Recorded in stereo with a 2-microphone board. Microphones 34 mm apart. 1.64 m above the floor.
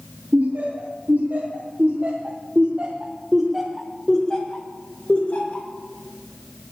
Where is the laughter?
80° right, 2.5 m; by 5.7 s 45° left (ahead or behind), 2.0 m.